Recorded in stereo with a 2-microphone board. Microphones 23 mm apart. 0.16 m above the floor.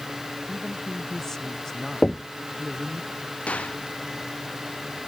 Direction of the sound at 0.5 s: 20° left (ahead or behind).